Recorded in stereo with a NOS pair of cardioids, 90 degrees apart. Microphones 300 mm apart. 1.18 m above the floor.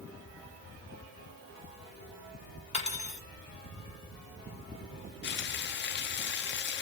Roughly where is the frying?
Ahead left.